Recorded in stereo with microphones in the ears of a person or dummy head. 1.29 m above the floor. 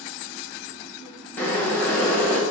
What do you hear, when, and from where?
1.4 s boiling: 10° left (ahead or behind), 0.6 m